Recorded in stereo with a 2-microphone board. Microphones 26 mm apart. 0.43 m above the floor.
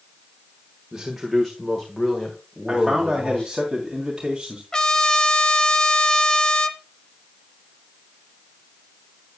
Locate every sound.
0.9 s a man speaking: 20° right (ahead or behind), 1.4 m; by 3.5 s 35° left (ahead or behind), 3.5 m
2.7 s a man speaking: 20° right (ahead or behind), 2.5 m
4.7 s a trumpet: 25° left (ahead or behind), 0.9 m